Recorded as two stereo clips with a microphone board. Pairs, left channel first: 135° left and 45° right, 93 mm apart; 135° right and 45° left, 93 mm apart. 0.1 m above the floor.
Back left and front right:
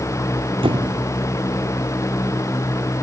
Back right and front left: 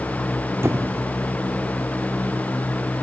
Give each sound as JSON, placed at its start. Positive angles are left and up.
{"t": 0.6, "sound": "a squeak", "azimuth_deg": -20}